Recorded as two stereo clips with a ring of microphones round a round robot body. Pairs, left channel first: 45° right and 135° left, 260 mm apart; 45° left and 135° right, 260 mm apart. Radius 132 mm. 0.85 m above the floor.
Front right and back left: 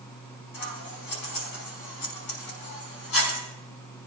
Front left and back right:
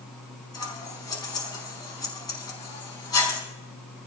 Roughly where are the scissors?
Ahead right.